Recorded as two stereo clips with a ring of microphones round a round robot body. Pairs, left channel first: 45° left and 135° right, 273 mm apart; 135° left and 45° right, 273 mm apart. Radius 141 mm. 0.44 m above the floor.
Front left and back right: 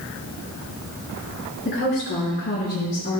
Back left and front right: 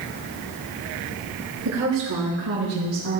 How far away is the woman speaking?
About 5 m.